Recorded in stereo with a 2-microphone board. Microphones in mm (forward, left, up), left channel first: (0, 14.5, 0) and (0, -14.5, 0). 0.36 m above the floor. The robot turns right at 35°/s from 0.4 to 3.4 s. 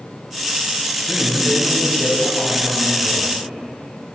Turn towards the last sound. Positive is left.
turn(degrees=-145)